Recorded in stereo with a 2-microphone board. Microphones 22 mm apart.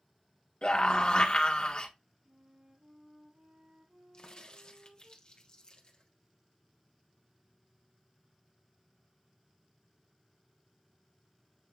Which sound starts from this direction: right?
A flute, at 2.2 s.